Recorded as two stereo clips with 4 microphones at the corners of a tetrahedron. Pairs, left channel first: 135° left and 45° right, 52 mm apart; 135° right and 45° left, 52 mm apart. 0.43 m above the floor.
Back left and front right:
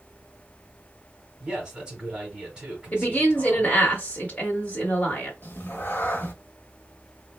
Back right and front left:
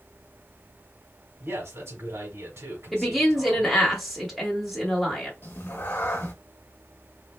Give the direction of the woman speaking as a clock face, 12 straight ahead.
8 o'clock.